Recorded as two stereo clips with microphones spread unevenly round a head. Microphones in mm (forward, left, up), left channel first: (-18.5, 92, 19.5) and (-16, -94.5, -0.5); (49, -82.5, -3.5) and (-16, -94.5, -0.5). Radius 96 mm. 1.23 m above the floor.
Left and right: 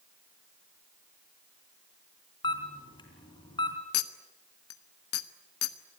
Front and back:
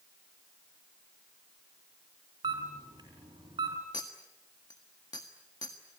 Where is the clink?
70° left, 1.3 m.